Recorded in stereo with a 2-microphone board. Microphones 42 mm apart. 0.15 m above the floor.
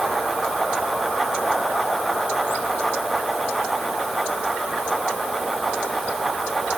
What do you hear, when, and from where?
Only background noise.